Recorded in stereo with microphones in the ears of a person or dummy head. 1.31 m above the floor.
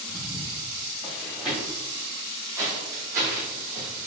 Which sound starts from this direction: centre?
Footsteps, at 0.1 s.